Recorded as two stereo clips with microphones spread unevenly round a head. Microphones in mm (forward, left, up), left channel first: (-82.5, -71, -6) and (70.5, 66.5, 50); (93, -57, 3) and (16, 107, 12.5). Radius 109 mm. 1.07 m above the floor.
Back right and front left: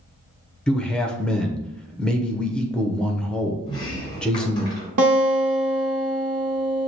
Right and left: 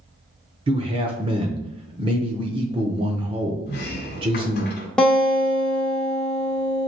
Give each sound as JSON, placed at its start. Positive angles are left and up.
{"t": 0.7, "sound": "a man speaking", "azimuth_deg": 165, "distance_m": 0.7}
{"t": 3.7, "sound": "a sliding door", "azimuth_deg": -60, "distance_m": 1.1}
{"t": 5.0, "sound": "a guitar", "azimuth_deg": 20, "distance_m": 1.0}